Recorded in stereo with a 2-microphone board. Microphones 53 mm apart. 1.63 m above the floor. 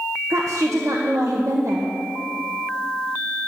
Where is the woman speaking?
70° right (ahead or behind), 1.2 m.